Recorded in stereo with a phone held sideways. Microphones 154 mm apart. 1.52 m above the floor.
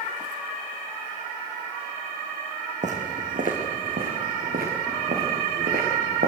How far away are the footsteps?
About 4 m.